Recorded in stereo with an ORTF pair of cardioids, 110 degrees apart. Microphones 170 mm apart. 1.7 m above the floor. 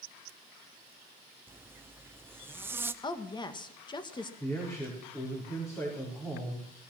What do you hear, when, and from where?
1.5 s a zipper: 15° right, 0.9 m
3.0 s a woman speaking: 25° left, 1.8 m
4.4 s a man speaking: 15° left, 5 m